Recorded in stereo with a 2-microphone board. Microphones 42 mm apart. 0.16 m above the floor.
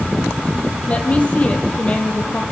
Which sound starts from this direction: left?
A woman speaking, at 0.9 s.